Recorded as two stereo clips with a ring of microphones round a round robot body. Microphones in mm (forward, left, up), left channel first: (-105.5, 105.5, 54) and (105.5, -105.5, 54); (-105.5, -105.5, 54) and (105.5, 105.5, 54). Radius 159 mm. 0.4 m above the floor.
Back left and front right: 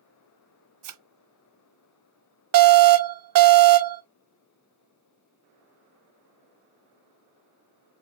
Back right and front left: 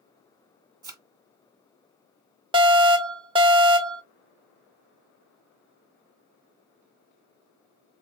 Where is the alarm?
25° right, 1.1 m.